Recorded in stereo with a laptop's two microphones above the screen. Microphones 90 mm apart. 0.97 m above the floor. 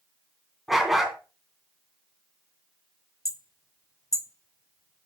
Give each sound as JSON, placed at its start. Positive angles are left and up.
{"t": 0.7, "sound": "a dog barking", "side_deg": -5, "distance_m": 2.5}
{"t": 3.2, "sound": "hammering", "side_deg": 40, "distance_m": 0.7}